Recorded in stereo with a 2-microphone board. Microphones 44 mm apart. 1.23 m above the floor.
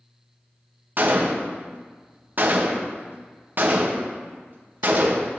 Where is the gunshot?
45° right (ahead or behind), 0.6 m.